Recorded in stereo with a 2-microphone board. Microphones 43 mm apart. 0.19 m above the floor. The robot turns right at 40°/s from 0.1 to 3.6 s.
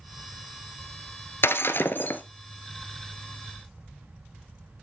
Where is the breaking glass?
100° left, 1.0 m; by 2.2 s 130° left, 1.0 m.